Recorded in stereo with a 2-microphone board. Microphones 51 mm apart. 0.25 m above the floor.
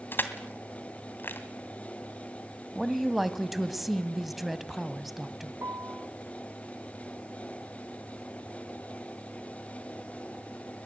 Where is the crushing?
40° left (ahead or behind), 2 m.